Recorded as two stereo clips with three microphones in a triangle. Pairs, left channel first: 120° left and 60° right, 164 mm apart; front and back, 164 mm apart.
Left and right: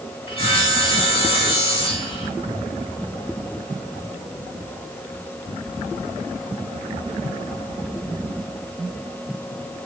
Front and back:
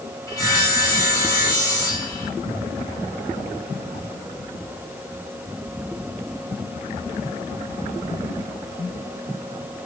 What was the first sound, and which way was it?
Sawing, 65° left.